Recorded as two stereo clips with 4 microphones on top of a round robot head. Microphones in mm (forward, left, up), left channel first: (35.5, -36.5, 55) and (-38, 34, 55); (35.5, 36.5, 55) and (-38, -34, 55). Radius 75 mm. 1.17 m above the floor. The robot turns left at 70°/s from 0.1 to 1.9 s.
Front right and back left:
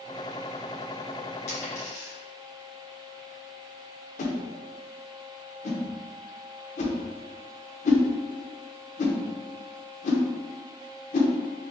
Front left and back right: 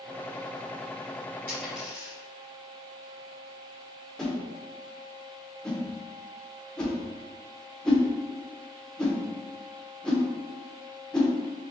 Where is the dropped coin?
30° right, 1.8 m; by 2.1 s 60° right, 1.8 m.